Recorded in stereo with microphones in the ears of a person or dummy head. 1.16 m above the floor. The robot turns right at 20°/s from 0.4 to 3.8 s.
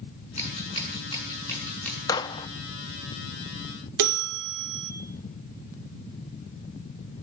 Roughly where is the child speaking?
No child speaking in this recording.